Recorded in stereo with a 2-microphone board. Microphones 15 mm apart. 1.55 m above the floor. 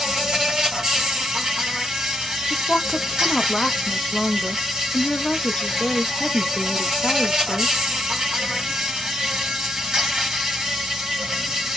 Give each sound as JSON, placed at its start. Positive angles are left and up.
{"t": 0.0, "sound": "an insect", "side_deg": -45, "distance_m": 1.7}
{"t": 2.5, "sound": "a woman speaking", "side_deg": 65, "distance_m": 0.6}